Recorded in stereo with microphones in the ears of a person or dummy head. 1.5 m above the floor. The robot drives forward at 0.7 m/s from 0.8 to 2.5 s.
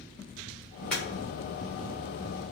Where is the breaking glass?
5° left (ahead or behind), 1.1 m.